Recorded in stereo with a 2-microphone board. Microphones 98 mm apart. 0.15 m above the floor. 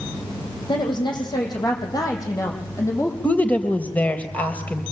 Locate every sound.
0.7 s a woman speaking: 50° left (ahead or behind), 7.5 m; by 3.1 s 30° left (ahead or behind), 7 m
3.2 s a woman speaking: 15° left (ahead or behind), 3.5 m